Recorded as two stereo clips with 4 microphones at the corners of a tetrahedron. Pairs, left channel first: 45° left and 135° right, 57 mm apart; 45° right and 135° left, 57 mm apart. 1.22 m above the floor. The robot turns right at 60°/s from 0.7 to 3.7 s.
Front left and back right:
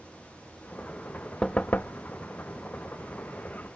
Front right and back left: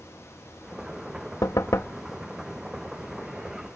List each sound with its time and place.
1.4 s knocking: 30° right; by 2.0 s 5° left